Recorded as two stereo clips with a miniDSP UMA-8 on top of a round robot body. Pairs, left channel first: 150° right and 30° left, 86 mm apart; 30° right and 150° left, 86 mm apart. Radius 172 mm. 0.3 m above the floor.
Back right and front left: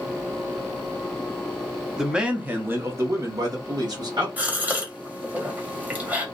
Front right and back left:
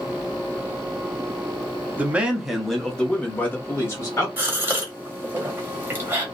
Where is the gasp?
95° left, 1.4 m.